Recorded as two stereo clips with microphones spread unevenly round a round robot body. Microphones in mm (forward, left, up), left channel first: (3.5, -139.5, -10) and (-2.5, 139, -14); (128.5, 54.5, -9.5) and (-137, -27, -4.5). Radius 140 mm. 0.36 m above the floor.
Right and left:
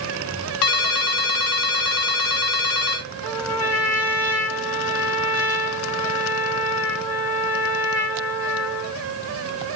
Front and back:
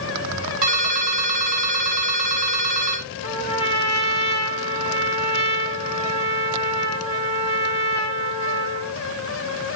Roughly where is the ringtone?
Right.